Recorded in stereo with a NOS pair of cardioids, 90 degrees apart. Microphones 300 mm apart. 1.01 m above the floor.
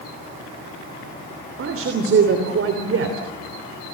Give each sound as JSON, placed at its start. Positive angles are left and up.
{"t": 1.6, "sound": "a man speaking", "azimuth_deg": -45, "distance_m": 3.0}